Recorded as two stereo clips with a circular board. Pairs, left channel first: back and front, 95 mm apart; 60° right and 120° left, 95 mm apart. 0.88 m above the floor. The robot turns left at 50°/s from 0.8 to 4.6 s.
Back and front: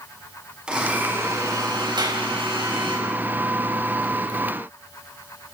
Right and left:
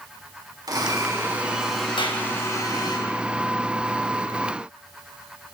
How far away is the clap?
About 4.5 m.